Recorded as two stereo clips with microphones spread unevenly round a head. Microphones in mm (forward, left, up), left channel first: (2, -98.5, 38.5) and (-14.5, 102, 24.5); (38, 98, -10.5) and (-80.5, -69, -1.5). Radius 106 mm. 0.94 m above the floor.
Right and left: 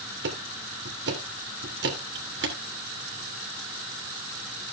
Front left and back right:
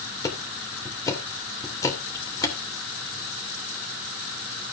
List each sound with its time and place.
0.2 s ticking: 130° left, 2.5 m